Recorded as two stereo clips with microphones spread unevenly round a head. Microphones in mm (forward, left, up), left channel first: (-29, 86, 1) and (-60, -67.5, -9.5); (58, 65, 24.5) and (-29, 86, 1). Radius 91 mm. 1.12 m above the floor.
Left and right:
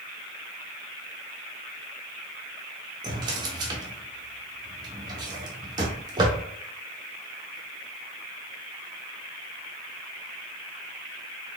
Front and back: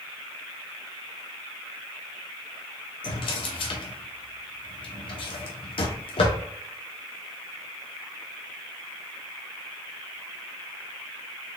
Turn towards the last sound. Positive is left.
turn(degrees=-35)